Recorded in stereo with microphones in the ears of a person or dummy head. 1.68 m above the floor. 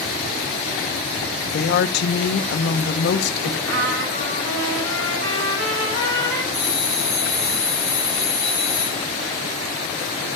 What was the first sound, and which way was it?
A woman speaking, 50° left (ahead or behind).